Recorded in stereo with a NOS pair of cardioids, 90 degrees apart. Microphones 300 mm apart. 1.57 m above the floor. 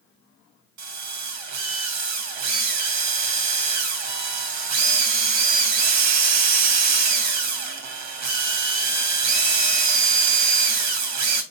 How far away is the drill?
About 2 m.